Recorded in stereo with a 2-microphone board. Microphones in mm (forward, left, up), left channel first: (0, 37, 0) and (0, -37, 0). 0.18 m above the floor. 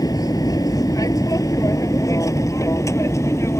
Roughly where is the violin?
No violin in this recording.